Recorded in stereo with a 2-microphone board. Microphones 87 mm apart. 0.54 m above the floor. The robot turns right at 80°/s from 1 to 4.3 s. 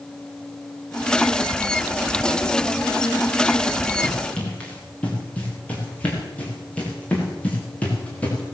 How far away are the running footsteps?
About 8 m.